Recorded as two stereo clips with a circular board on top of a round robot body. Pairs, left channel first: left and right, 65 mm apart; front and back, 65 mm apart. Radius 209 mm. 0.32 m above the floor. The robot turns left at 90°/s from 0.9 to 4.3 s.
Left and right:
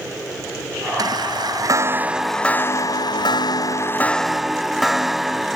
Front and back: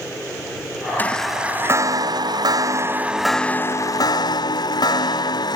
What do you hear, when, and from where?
1.0 s a chime: 65° right; by 5.6 s 5° right